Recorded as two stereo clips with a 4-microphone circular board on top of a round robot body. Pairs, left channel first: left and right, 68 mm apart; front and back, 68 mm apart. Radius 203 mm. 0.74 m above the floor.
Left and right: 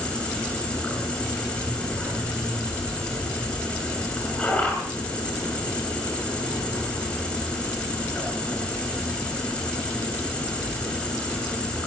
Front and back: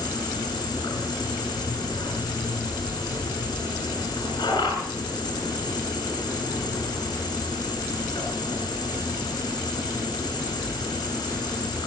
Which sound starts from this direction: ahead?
An insect, at 0.0 s.